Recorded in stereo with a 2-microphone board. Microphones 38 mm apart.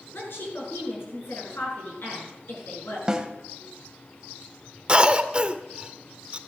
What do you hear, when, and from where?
0.1 s a woman speaking: 70° left (ahead or behind), 6.5 m
3.1 s a snare drum: 20° right (ahead or behind), 1.3 m
4.9 s a cough: 25° right (ahead or behind), 0.9 m